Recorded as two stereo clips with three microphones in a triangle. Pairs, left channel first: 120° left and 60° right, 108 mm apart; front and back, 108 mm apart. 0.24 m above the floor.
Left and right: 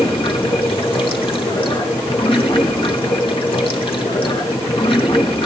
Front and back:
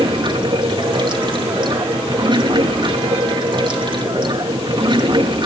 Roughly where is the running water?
Behind left.